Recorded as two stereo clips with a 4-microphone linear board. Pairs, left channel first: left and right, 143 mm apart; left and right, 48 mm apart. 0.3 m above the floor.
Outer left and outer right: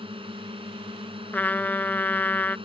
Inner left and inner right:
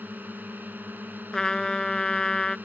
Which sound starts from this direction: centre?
A trumpet, at 1.3 s.